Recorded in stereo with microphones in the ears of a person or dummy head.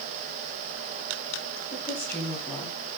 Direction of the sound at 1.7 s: 10° left (ahead or behind).